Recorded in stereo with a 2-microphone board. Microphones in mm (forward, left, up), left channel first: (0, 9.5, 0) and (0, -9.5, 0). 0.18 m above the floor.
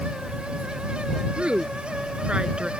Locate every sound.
1.4 s a woman speaking: 70° right (ahead or behind); by 2.7 s 55° right (ahead or behind)